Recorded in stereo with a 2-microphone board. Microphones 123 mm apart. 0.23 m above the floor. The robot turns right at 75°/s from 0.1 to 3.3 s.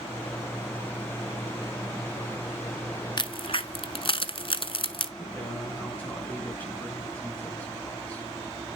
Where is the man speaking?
15° left (ahead or behind), 2.5 m.